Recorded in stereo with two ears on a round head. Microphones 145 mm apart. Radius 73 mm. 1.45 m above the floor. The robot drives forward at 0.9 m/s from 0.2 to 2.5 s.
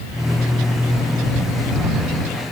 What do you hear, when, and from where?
Only background noise.